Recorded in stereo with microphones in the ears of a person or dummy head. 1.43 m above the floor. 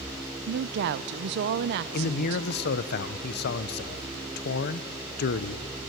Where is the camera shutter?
No camera shutter in this recording.